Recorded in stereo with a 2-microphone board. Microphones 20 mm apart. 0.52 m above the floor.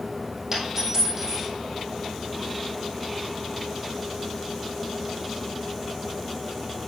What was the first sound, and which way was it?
A dropped coin, 25° right (ahead or behind).